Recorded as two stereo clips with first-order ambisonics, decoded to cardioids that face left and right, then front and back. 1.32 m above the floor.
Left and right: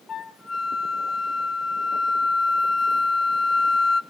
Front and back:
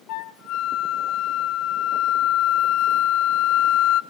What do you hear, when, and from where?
0.1 s a flute: 20° left, 0.7 m